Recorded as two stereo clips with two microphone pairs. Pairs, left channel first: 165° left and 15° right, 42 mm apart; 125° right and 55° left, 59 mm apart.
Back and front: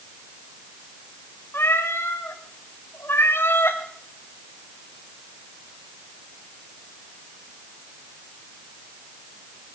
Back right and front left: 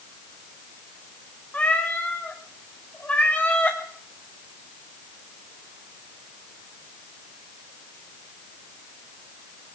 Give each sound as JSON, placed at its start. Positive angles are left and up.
{"t": 1.5, "sound": "a cat meowing", "azimuth_deg": 170, "distance_m": 3.5}